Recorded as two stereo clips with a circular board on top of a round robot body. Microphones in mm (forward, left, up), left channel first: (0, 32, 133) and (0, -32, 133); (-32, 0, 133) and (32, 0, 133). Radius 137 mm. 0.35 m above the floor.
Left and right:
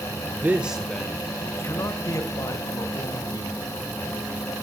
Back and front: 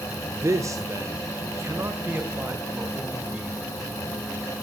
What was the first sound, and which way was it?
A man speaking, 35° right.